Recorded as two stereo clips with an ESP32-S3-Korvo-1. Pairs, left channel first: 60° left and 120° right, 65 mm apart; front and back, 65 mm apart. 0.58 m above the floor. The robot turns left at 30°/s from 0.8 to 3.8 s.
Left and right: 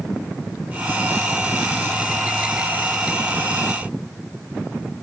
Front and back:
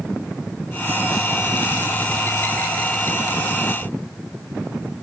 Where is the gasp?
I don't hear a gasp.